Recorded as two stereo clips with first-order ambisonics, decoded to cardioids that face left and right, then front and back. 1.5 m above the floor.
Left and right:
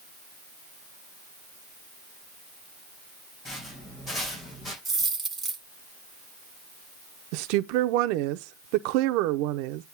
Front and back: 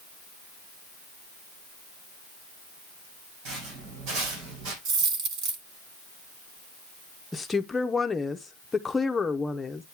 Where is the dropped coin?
170° right, 2 m.